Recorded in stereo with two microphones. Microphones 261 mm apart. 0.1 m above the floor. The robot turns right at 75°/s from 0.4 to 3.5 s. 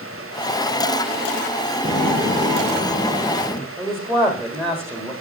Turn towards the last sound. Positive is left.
turn(degrees=-10)  # may be behind; listen again after turning